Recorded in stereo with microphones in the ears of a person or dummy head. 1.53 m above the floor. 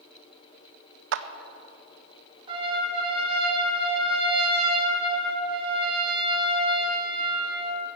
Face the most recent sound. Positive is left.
turn(degrees=-30)  # may be behind; listen again after turning